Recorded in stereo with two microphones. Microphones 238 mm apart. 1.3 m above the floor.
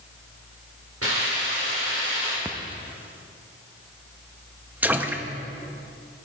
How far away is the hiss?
About 4 m.